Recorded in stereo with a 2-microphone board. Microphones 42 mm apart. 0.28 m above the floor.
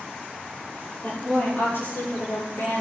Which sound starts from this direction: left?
A woman speaking, at 1.0 s.